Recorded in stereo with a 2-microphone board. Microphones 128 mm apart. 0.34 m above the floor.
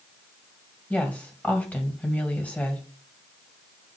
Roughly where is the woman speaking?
Centre.